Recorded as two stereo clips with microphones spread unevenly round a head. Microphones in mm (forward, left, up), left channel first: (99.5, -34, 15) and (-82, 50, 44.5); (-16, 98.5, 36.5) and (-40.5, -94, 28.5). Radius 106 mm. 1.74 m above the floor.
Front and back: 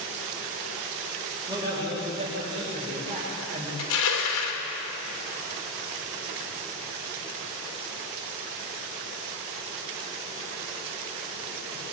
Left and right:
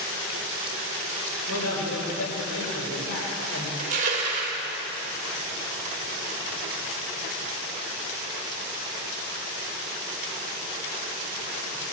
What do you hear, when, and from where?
1.5 s a man speaking: 85° left, 8 m; by 3.7 s 100° left, 7 m
3.8 s crushing: 40° right, 3 m